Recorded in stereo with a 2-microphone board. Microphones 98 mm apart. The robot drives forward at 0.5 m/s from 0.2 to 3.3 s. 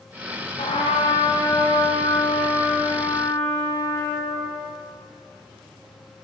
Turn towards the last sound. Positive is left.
turn(degrees=25)  # may be behind; listen again after turning